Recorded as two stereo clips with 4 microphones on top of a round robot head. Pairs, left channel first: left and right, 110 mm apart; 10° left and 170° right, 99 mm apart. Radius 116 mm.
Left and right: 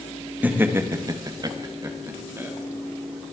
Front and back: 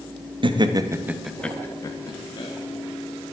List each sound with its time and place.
0.4 s laughter: 160° right, 1.3 m; by 2.5 s 25° right, 1.9 m